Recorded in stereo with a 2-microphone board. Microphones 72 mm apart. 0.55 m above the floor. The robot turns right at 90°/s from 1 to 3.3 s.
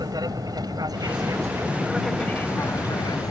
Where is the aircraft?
65° right (ahead or behind); by 3.3 s 60° left (ahead or behind).